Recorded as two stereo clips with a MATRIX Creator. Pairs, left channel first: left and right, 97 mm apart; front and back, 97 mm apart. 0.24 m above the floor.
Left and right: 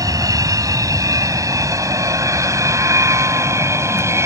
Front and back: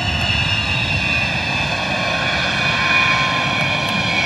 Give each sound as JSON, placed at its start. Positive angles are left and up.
{"t": 0.0, "sound": "an aircraft", "azimuth_deg": -85}